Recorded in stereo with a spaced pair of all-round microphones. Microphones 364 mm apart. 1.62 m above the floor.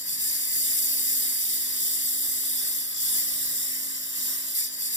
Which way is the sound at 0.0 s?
35° left (ahead or behind).